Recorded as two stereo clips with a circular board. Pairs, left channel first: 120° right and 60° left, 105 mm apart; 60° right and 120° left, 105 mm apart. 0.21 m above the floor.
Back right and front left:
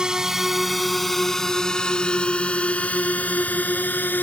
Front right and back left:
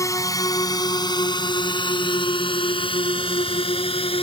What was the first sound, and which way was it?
A drone, 20° right.